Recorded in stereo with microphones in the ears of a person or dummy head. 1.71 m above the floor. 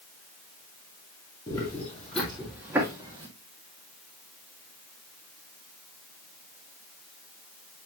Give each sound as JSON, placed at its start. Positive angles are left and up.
{"t": 1.5, "sound": "footsteps", "side_deg": 20, "distance_m": 1.8}